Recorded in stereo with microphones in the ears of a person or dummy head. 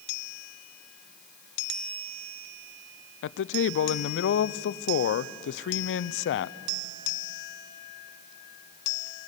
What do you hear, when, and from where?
3.2 s a man speaking: 70° left (ahead or behind), 0.6 m